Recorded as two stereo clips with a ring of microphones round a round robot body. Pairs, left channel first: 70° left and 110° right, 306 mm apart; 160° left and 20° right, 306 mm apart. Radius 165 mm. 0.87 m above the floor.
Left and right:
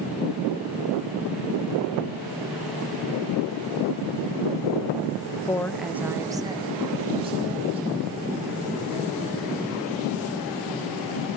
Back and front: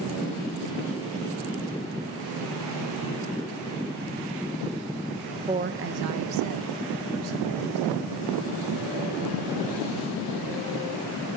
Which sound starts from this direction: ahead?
A woman speaking, at 5.5 s.